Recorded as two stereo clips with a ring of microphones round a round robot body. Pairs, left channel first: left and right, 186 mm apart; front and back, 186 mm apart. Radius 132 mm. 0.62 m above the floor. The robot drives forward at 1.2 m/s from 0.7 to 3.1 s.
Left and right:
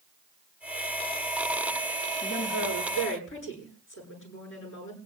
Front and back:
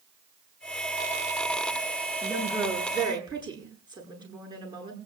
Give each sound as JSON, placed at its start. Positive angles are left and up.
{"t": 2.2, "sound": "a woman speaking", "azimuth_deg": 110, "distance_m": 8.0}